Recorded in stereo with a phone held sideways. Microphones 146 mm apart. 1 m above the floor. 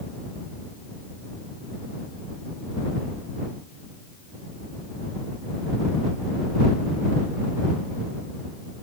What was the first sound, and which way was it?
Only background noise.